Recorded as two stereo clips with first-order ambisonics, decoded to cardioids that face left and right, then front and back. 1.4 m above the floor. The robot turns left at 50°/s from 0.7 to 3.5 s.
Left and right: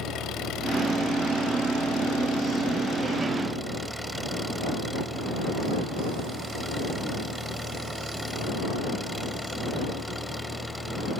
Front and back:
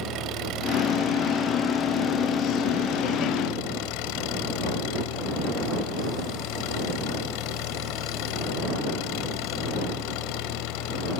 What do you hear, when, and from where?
0.0 s an engine running: 140° left; by 11.2 s straight ahead